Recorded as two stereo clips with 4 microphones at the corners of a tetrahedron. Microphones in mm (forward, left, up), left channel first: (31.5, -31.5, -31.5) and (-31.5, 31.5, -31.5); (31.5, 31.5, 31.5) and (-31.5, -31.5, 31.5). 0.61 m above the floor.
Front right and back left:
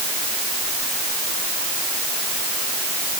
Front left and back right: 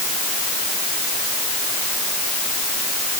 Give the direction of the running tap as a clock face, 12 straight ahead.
No running tap in this recording.